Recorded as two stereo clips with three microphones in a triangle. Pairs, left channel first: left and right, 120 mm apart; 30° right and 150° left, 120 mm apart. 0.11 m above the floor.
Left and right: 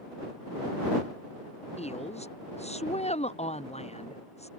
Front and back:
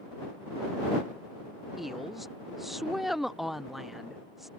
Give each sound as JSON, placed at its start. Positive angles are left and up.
{"t": 1.8, "sound": "a woman speaking", "azimuth_deg": 60}